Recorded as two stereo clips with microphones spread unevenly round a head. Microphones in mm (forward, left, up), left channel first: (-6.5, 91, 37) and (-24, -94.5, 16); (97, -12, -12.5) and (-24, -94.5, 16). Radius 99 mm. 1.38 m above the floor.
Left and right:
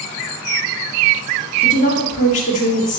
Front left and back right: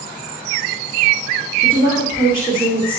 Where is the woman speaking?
135° left, 3 m.